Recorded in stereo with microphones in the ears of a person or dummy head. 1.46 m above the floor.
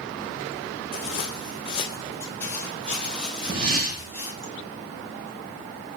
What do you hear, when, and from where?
0.9 s footsteps: 45° left (ahead or behind), 2.5 m; by 4.5 s 20° right (ahead or behind), 3 m
3.5 s a whoosh: 80° right, 3 m